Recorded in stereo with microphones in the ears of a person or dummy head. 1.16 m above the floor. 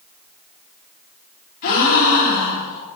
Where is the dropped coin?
I don't hear a dropped coin.